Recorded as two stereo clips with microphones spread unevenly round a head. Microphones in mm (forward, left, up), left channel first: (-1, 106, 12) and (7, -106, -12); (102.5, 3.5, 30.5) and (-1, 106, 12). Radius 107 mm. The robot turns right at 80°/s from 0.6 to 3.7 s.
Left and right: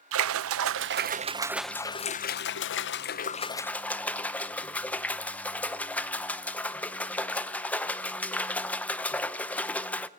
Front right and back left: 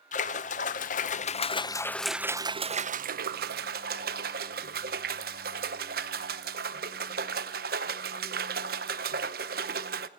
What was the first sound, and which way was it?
A splash, 75° right.